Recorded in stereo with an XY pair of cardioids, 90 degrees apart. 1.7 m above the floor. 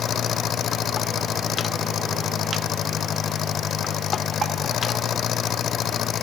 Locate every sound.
0.0 s an engine running: 70° left